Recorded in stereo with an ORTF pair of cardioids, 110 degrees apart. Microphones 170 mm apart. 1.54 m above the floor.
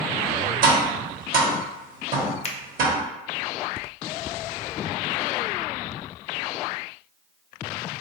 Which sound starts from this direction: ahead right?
Tapping, at 0.6 s.